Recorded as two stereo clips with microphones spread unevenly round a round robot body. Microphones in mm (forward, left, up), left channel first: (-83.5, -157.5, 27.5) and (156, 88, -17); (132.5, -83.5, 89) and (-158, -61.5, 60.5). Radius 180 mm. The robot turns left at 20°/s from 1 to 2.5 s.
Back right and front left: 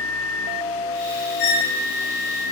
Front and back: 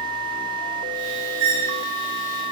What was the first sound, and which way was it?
A squeak, 140° left.